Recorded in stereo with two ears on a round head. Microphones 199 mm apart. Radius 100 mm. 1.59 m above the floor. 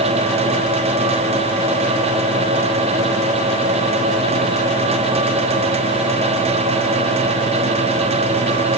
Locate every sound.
Only background noise.